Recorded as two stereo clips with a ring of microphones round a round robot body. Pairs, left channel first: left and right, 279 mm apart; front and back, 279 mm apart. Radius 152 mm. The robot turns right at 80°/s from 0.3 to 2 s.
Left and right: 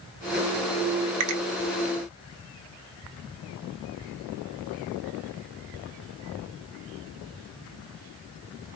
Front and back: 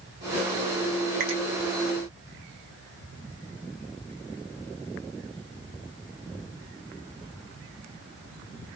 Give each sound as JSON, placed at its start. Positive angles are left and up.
{"t": 1.2, "sound": "a finger snap", "azimuth_deg": -115, "distance_m": 1.3}